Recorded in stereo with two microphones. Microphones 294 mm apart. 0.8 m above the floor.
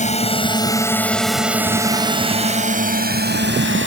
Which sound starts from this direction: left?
A drone, at 0.0 s.